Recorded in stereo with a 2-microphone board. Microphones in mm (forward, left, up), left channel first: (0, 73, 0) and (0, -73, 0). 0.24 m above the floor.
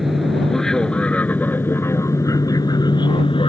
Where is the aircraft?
Centre (ahead or behind); by 3.5 s 40° left (ahead or behind).